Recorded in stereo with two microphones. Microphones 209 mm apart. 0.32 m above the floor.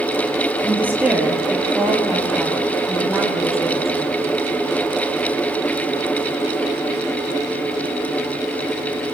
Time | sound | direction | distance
0.6 | a woman speaking | 10° right (ahead or behind) | 7.5 m